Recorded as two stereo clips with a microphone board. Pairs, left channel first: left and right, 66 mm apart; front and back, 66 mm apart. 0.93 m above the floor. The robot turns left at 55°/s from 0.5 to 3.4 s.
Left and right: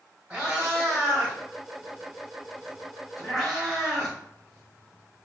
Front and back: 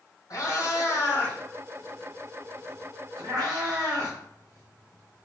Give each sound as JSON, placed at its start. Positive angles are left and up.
{"t": 0.3, "sound": "a cat meowing", "azimuth_deg": -20, "distance_m": 1.8}